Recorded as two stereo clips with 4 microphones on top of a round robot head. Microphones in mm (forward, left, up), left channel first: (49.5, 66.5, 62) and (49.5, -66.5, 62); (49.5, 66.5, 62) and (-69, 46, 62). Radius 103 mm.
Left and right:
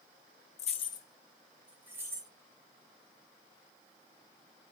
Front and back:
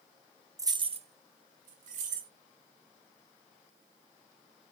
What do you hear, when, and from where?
0.6 s keys jangling: 125° left, 0.6 m; by 2.3 s 160° right, 1.3 m